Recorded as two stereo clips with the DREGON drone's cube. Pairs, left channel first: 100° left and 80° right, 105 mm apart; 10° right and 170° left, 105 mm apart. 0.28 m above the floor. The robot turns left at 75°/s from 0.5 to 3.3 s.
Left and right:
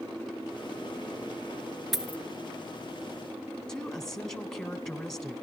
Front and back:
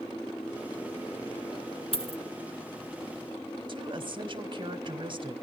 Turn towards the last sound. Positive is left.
turn(degrees=-175)